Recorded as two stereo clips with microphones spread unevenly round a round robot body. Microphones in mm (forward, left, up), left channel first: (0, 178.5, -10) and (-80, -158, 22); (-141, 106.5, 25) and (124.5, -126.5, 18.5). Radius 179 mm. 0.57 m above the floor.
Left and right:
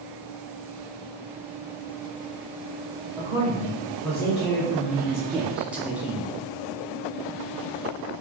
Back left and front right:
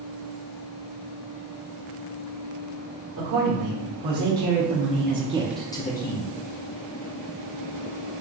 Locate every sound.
3.2 s a man speaking: 10° right, 1.8 m; by 6.3 s 165° left, 0.8 m